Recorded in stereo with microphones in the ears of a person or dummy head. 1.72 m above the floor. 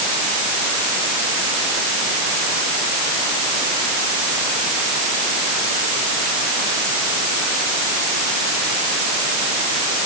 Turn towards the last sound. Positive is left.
No sound to turn to.